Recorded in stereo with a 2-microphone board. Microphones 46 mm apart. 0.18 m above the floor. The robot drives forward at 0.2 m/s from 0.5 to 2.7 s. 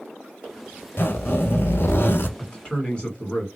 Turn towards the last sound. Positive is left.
turn(degrees=20)  # may be behind; listen again after turning